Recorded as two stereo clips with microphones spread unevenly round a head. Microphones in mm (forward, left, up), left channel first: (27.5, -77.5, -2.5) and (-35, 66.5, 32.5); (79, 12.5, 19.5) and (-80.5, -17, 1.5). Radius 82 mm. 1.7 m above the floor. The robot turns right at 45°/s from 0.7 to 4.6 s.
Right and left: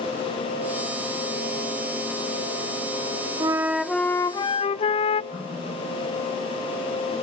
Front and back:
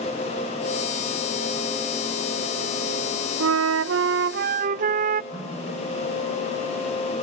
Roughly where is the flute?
Behind.